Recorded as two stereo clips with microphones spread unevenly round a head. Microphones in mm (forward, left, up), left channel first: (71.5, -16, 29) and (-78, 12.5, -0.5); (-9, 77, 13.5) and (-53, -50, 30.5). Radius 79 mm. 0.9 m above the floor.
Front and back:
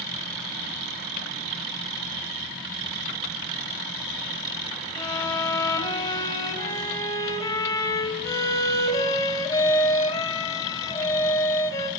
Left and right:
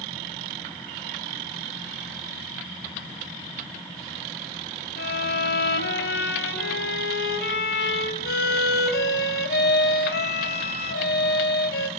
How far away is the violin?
About 2.5 m.